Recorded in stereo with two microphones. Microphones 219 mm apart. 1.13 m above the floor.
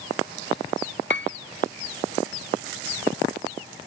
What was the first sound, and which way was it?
A piano, 50° left (ahead or behind).